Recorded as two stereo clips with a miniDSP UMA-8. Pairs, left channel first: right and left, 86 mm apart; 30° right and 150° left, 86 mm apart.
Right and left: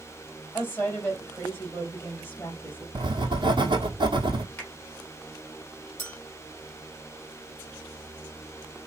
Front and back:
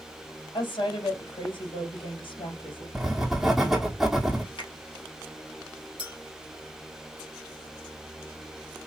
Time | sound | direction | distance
0.5 | a woman speaking | 30° right | 3 m
3.0 | writing | 65° left | 1.2 m
4.6 | a finger snap | 25° right | 2.5 m
6.0 | a clink | 25° right | 2.5 m